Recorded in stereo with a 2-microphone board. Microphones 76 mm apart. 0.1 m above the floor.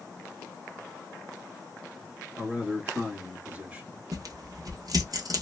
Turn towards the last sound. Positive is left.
turn(degrees=-55)  # may be behind; listen again after turning